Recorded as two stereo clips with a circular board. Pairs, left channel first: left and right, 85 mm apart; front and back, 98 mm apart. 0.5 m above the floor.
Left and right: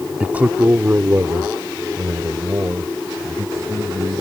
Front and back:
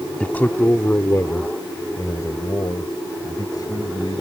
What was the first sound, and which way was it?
A man speaking, 50° right.